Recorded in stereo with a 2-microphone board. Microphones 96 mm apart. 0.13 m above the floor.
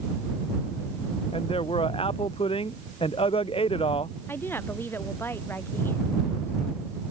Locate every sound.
1.3 s a man speaking: 70° left (ahead or behind)
4.3 s a woman speaking: 25° left (ahead or behind)